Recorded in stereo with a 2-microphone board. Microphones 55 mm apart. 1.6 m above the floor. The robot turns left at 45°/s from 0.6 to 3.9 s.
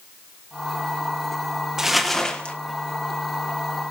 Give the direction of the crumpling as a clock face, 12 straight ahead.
6 o'clock.